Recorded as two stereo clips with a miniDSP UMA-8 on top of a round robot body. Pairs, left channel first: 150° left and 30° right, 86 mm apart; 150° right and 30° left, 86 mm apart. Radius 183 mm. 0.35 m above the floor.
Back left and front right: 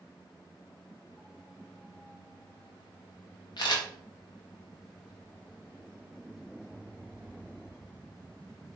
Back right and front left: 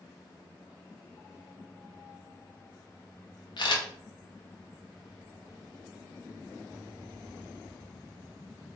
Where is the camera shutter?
175° right, 0.8 m.